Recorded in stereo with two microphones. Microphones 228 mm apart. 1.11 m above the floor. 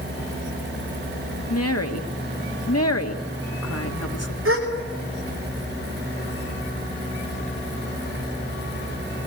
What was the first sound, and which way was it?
A woman speaking, 85° left.